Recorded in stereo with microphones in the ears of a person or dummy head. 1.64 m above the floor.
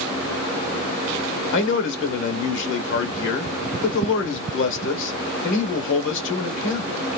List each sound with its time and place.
1.5 s a man speaking: 75° left (ahead or behind), 1.3 m